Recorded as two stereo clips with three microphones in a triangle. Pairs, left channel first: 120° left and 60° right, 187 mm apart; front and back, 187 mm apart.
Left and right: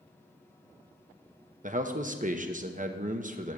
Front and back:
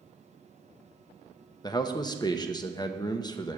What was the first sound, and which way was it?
A man speaking, 60° right.